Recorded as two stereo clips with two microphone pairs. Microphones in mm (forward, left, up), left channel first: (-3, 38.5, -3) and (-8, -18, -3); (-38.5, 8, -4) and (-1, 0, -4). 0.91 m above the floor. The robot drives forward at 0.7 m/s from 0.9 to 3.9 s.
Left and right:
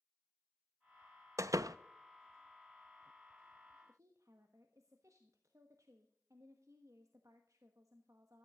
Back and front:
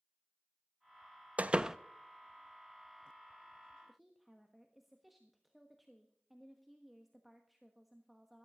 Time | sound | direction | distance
1.4 | a door slam | 65° right | 0.5 m
3.9 | a woman speaking | 100° right | 1.2 m